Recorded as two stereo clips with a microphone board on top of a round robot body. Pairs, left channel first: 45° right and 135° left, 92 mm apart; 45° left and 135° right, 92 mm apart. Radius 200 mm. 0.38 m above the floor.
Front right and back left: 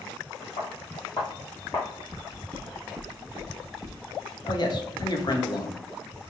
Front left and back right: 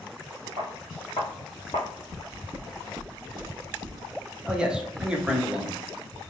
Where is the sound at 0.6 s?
90° right, 0.5 m; by 1.9 s 20° left, 1.3 m.